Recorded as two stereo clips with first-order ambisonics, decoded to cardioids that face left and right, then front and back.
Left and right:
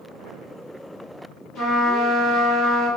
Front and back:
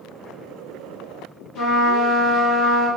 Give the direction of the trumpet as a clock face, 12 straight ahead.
11 o'clock.